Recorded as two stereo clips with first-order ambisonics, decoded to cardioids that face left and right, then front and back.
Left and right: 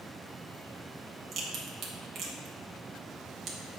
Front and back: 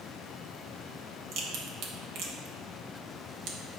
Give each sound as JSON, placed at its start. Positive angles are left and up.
{"t": 1.3, "sound": "a crack", "azimuth_deg": -145, "distance_m": 1.3}